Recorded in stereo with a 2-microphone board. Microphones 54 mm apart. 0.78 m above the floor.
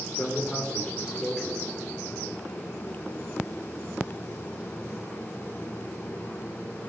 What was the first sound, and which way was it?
A man speaking, 15° left (ahead or behind).